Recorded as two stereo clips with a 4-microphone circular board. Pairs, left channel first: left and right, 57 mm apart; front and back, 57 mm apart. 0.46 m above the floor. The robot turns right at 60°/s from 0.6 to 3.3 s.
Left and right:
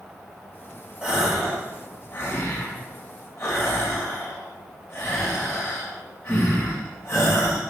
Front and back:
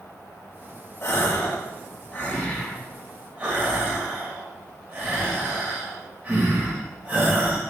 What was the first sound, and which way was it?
A gasp, 20° right.